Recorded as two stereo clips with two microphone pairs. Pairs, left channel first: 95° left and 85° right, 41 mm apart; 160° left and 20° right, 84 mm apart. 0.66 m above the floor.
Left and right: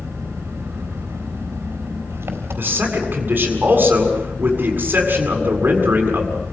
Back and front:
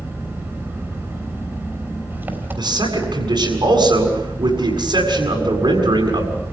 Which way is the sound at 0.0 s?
85° right.